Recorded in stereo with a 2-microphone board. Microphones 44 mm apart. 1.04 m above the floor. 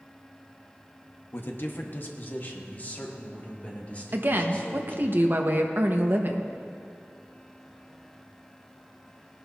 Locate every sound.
1.3 s a man speaking: 60° left (ahead or behind), 1.1 m; by 5.1 s 30° left (ahead or behind), 3 m
4.1 s a woman speaking: 50° right (ahead or behind), 1.1 m